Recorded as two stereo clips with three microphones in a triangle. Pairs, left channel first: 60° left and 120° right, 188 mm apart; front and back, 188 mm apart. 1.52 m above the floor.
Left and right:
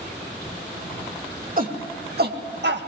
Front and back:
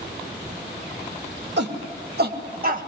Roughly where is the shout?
Behind.